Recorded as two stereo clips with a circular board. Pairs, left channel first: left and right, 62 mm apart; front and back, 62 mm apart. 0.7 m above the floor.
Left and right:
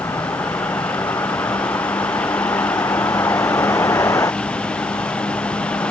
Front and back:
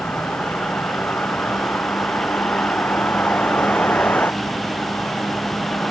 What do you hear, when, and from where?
0.0 s a vehicle: 60° left